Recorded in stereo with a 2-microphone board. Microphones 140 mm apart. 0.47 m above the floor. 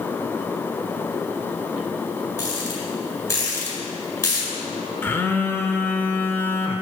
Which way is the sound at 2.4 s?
20° left (ahead or behind).